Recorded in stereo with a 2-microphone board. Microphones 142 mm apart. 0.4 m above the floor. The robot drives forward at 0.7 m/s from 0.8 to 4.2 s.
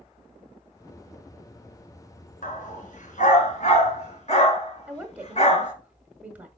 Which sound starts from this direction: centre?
A woman speaking, at 4.9 s.